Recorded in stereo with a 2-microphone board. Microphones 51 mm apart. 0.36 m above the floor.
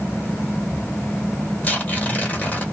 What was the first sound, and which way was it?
Tearing paper, 30° left (ahead or behind).